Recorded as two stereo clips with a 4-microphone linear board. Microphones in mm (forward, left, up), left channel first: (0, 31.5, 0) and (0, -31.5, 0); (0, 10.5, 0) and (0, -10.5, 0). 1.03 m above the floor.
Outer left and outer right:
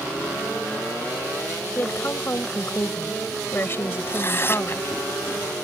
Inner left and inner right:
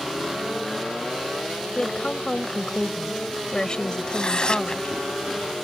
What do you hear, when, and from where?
1.8 s a woman speaking: 40° left (ahead or behind)
4.1 s tearing paper: 40° left (ahead or behind)